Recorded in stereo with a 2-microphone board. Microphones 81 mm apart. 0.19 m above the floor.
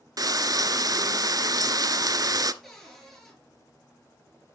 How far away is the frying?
About 0.5 m.